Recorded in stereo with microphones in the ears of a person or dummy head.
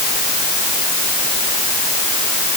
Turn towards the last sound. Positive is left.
No sound to turn to.